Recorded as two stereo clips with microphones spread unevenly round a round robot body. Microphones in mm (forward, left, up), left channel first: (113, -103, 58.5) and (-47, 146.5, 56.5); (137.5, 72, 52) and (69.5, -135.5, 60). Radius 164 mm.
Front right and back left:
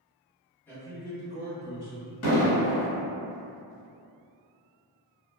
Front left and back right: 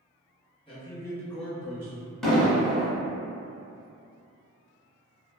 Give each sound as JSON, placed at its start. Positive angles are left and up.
{"t": 0.7, "sound": "a man speaking", "azimuth_deg": 25, "distance_m": 1.3}
{"t": 2.2, "sound": "an explosion", "azimuth_deg": -15, "distance_m": 1.2}